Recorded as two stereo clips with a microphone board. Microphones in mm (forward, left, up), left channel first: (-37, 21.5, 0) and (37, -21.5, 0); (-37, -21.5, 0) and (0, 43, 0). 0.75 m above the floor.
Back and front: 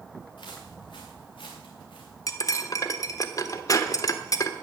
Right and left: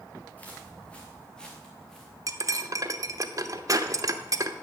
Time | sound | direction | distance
0.4 | footsteps | 170° left | 3.5 m
2.3 | cutlery clinking | 100° left | 0.9 m